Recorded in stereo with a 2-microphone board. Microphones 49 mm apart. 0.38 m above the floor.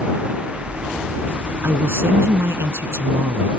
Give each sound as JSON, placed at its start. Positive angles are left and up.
{"t": 1.6, "sound": "a man speaking", "side_deg": -70}